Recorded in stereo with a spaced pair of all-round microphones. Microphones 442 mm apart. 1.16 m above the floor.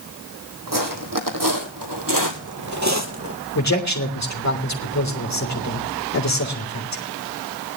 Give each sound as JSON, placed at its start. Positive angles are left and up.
{"t": 0.7, "sound": "footsteps", "side_deg": -45, "distance_m": 2.5}
{"t": 3.5, "sound": "a man speaking", "side_deg": 35, "distance_m": 3.5}